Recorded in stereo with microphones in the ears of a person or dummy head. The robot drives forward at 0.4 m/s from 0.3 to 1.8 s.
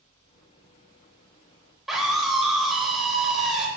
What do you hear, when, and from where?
1.9 s a scream: centre (ahead or behind), 3 m